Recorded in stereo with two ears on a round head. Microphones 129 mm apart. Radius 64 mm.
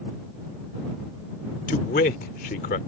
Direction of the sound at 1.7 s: 60° left (ahead or behind).